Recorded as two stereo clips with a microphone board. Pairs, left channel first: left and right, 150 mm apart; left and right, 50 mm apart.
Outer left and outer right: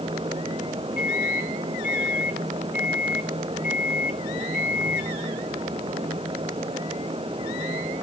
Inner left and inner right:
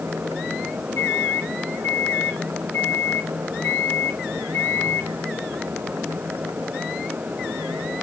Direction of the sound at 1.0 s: 85° left.